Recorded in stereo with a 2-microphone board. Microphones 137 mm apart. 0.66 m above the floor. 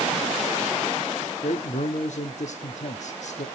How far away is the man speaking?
About 1.0 m.